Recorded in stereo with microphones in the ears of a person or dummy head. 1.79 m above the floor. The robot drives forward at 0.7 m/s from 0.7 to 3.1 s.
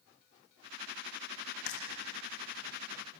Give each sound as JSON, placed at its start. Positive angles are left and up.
{"t": 1.7, "sound": "frying", "side_deg": 55, "distance_m": 3.0}